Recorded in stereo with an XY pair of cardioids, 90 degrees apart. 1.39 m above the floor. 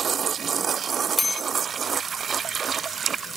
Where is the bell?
20° left, 1.1 m.